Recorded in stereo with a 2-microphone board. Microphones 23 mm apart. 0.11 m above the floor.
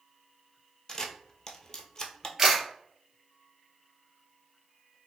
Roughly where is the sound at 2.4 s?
Right.